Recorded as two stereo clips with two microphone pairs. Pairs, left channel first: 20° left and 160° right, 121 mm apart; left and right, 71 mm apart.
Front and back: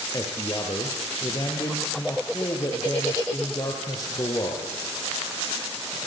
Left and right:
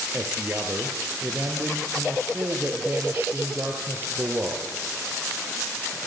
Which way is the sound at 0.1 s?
35° right.